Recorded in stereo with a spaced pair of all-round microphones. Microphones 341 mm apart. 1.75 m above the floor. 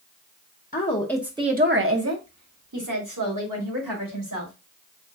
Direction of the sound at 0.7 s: 25° left (ahead or behind).